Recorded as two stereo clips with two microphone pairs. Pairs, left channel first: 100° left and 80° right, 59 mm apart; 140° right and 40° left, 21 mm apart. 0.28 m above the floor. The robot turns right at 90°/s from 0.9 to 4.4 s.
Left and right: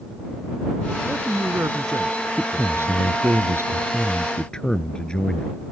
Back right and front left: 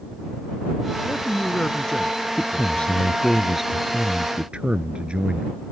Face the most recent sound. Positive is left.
turn(degrees=30)